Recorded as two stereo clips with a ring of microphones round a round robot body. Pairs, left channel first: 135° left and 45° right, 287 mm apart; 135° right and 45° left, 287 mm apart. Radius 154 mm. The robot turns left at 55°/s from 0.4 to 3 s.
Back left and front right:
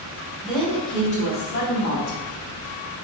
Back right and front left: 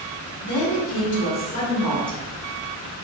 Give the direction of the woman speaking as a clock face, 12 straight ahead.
4 o'clock.